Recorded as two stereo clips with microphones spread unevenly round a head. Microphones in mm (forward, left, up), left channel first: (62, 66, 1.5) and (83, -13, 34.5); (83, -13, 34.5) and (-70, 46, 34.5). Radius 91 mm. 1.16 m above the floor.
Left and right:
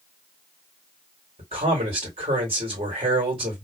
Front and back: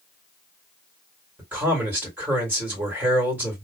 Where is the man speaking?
120° right, 2 m.